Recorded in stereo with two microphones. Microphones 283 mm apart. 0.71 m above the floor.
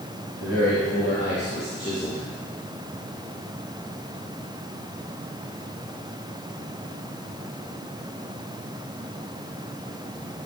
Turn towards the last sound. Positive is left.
turn(degrees=20)  # may be behind; listen again after turning